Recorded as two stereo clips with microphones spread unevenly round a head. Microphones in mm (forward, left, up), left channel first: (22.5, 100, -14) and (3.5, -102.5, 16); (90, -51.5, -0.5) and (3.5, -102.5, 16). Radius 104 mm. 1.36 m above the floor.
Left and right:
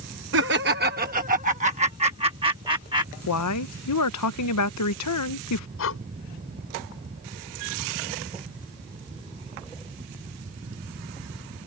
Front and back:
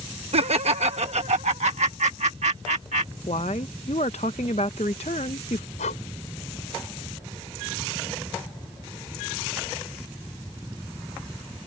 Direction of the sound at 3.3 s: 90° left.